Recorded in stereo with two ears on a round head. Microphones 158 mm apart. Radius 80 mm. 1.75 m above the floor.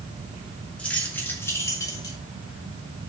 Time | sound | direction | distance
0.8 | keys jangling | 5° left (ahead or behind) | 2.5 m